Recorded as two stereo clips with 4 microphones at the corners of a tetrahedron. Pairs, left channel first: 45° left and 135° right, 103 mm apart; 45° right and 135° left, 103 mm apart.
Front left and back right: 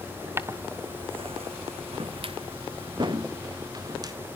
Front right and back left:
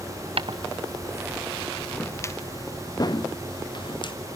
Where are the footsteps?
160° left, 0.9 m; by 4.1 s 85° right, 2.5 m.